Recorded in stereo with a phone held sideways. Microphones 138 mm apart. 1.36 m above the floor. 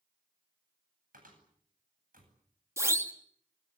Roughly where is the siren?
Centre.